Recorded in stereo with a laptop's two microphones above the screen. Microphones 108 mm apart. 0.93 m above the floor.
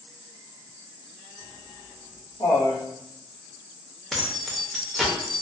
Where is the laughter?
40° left (ahead or behind), 0.5 m; by 2.8 s 65° left (ahead or behind), 1.3 m.